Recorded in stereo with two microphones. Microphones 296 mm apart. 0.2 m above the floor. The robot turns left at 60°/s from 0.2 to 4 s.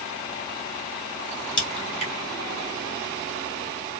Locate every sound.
1.6 s a crack: 15° left (ahead or behind), 1.5 m; by 2.1 s 20° left (ahead or behind), 1.5 m